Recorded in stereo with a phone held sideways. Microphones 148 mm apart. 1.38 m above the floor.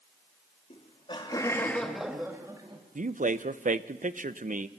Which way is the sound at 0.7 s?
50° left (ahead or behind).